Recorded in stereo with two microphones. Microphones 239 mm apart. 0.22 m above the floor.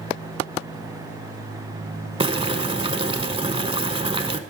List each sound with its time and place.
2.2 s boiling: 25° right (ahead or behind), 0.6 m